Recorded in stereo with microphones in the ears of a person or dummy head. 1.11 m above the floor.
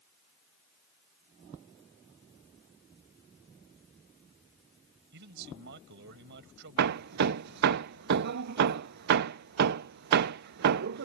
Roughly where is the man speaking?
Right.